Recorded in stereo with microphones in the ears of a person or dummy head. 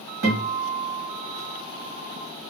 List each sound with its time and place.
0.2 s a guitar: 45° right (ahead or behind), 1.6 m